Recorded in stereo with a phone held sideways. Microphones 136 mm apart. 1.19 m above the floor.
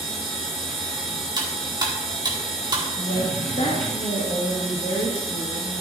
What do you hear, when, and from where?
0.0 s a machine running: 5° left (ahead or behind), 3 m
1.4 s cutlery clinking: 30° right (ahead or behind), 1.6 m
3.0 s a woman speaking: 70° left (ahead or behind), 1.8 m